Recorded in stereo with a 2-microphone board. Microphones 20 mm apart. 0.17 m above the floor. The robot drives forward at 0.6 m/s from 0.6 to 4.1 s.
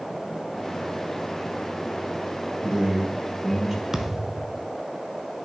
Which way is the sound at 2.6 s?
20° right (ahead or behind).